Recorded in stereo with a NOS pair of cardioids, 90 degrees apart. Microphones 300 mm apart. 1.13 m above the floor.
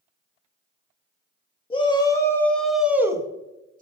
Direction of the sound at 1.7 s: 20° left.